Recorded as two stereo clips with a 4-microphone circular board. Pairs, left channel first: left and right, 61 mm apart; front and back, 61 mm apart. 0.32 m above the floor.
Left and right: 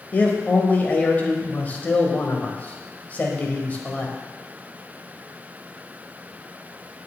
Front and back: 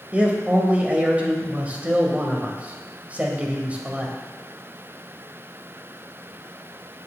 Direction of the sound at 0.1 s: 130° left.